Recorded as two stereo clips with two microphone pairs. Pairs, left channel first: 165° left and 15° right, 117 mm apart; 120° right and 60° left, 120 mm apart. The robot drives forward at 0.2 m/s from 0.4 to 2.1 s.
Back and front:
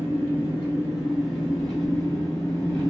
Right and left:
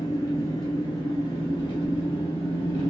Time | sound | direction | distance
0.0 | an engine running | 90° right | 1.0 m